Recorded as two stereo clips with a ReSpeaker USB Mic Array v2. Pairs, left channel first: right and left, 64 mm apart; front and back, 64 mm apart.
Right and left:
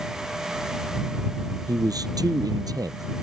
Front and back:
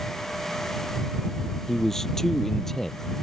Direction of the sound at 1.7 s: 85° left.